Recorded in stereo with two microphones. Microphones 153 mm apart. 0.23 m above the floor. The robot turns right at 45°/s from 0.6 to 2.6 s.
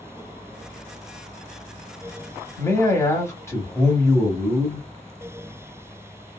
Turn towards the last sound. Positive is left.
turn(degrees=20)  # may be behind; listen again after turning